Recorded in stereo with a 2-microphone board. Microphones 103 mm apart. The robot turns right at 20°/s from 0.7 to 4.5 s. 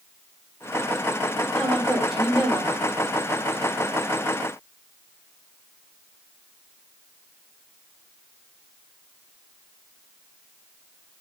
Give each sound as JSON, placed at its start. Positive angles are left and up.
{"t": 1.6, "sound": "a woman speaking", "side_deg": 10, "distance_m": 5.0}